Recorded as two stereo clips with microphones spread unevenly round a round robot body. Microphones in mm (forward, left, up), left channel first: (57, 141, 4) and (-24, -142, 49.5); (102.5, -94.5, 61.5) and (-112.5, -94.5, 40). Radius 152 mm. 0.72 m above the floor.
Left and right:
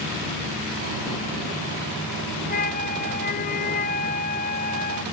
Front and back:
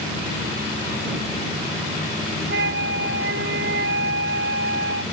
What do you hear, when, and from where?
2.5 s a flute: 135° left